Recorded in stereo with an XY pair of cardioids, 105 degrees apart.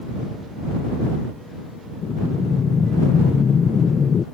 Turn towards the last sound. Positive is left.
turn(degrees=40)